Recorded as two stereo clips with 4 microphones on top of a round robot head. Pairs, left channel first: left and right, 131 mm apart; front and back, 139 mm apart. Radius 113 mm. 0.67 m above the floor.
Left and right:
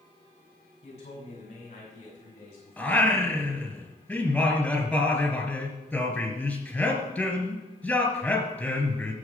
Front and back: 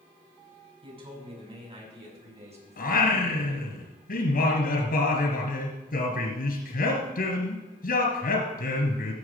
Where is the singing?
10° left, 3 m.